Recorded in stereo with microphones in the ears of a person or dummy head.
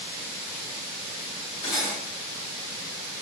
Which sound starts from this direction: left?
Cutlery clinking, at 1.6 s.